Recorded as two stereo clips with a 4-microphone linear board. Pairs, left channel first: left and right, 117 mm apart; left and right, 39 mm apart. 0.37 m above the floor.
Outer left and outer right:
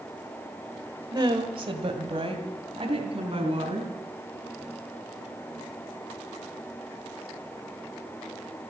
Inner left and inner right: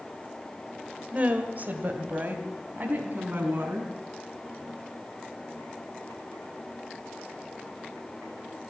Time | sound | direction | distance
1.1 | a woman speaking | 35° right (ahead or behind) | 1.4 m